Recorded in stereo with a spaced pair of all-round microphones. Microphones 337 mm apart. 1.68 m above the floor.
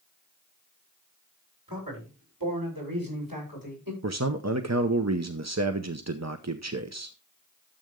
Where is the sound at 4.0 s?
50° right (ahead or behind), 0.8 m.